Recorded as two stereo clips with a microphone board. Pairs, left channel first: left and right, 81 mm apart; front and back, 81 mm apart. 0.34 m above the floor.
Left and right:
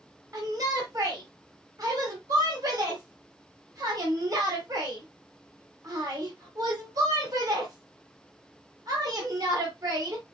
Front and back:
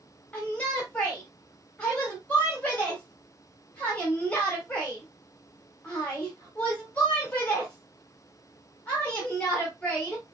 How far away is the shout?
About 1.5 m.